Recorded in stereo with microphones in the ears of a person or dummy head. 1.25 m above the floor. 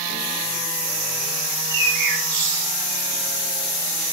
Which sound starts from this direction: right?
A bird, at 1.5 s.